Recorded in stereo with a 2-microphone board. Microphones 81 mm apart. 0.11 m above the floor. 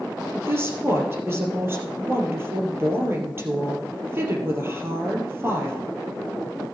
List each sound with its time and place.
0.3 s a woman speaking: 30° right (ahead or behind), 3 m